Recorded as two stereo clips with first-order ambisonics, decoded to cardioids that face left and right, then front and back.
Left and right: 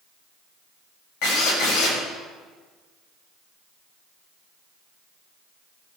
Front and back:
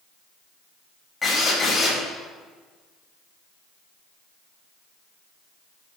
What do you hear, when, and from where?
1.2 s a drill: 70° left, 5.5 m